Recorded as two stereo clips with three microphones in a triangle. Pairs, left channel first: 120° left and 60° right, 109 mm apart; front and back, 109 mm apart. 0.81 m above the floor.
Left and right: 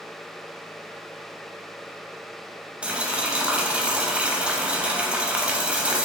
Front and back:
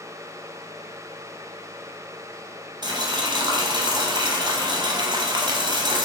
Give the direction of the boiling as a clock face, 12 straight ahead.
5 o'clock.